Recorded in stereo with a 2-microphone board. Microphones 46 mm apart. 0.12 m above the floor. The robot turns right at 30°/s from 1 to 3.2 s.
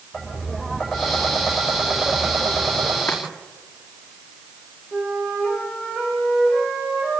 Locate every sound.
0.1 s tapping: 165° left, 6 m; by 3.0 s 135° right, 6 m
3.1 s chopping: 55° left (ahead or behind), 5.5 m; by 3.2 s 60° left (ahead or behind), 5.5 m
4.9 s a flute: 15° left (ahead or behind), 9.5 m